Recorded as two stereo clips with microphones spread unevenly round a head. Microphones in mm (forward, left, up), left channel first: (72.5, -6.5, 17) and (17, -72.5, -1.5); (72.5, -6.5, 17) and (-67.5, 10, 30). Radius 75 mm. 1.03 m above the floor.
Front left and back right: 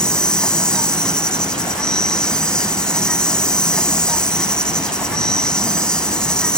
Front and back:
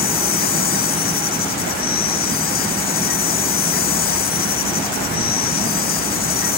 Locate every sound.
0.0 s an insect: 30° right